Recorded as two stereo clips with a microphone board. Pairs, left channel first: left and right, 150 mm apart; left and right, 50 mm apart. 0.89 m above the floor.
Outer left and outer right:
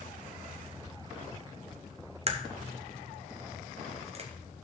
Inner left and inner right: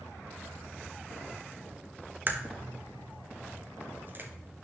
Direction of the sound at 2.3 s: 45° right (ahead or behind).